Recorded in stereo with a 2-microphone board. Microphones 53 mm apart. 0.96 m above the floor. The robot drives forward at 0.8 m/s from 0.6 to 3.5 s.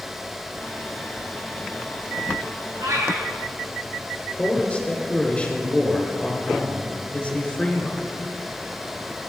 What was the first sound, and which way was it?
A cat meowing, 70° right (ahead or behind).